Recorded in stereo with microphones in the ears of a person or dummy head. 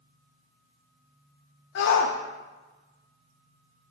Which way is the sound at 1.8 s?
55° left (ahead or behind).